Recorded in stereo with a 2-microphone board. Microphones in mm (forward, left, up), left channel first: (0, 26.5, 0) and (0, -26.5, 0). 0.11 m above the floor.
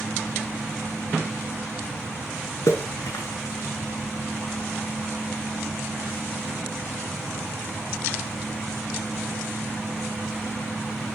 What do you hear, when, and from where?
2.7 s a splash: 70° left (ahead or behind), 4.5 m